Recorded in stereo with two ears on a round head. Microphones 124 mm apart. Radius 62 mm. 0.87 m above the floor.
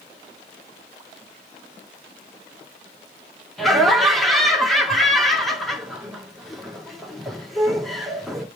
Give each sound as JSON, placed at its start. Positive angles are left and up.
{"t": 3.6, "sound": "laughter", "side_deg": 0, "distance_m": 1.9}